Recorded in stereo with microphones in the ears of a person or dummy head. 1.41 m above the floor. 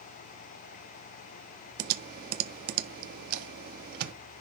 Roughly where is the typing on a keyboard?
Right.